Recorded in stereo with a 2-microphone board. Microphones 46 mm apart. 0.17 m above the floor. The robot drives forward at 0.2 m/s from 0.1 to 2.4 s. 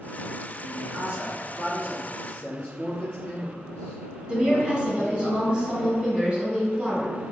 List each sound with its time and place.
0.6 s a man speaking: 35° right (ahead or behind), 1.4 m
2.1 s a man speaking: 25° left (ahead or behind), 1.4 m
4.3 s a woman speaking: 20° right (ahead or behind), 1.0 m